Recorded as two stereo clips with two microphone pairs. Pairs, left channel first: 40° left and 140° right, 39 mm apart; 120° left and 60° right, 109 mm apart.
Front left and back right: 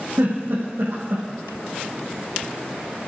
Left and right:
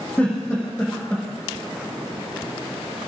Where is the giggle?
165° right, 9 m.